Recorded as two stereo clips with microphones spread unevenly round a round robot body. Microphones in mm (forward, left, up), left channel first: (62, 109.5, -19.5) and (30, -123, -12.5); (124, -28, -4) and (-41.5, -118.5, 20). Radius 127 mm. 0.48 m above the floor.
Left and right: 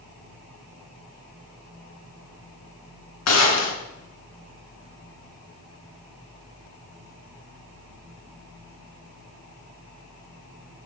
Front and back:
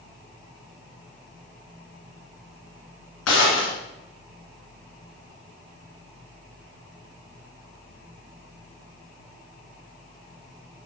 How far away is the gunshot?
About 1.9 m.